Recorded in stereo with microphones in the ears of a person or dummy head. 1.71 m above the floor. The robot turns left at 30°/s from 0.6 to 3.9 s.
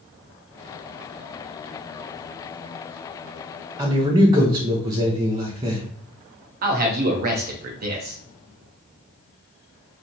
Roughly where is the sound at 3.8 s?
Centre.